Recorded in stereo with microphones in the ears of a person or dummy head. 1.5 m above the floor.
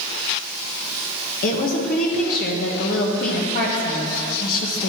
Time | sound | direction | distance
1.4 | a woman speaking | 50° left (ahead or behind) | 1.2 m